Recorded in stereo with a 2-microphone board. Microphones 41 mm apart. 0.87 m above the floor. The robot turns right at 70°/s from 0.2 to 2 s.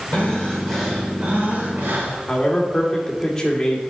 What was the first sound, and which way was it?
Breathing, 135° left.